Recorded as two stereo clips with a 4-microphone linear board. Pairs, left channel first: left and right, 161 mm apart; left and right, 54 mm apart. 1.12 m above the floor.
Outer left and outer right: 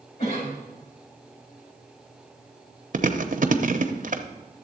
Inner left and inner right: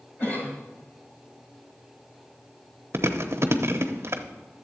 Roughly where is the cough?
Left.